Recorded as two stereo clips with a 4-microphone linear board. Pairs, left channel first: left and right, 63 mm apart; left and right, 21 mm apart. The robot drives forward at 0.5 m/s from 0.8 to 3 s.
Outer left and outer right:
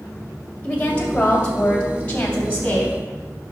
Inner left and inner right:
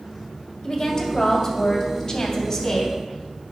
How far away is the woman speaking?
About 2.0 m.